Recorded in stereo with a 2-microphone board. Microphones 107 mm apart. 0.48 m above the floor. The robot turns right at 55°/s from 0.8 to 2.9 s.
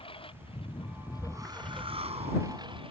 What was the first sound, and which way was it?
A lawn mower, 125° left.